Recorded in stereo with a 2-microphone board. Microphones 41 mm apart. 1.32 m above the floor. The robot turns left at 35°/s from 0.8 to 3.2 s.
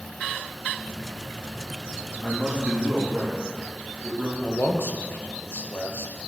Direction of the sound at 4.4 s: 60° left (ahead or behind).